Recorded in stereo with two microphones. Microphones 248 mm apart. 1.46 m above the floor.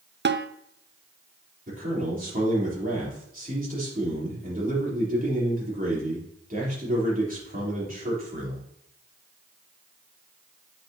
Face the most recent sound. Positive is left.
turn(degrees=-35)  # may be behind; listen again after turning